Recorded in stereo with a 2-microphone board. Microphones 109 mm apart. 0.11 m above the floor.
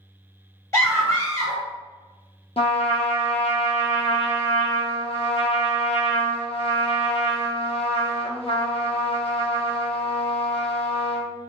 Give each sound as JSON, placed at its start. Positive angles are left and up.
{"t": 0.7, "sound": "a scream", "side_deg": 25, "distance_m": 1.6}
{"t": 2.6, "sound": "a trumpet", "side_deg": 65, "distance_m": 0.6}